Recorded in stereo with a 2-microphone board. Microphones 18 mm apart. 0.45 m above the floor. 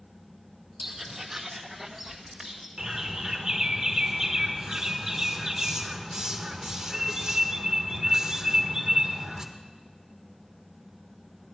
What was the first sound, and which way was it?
Footsteps, 20° right (ahead or behind).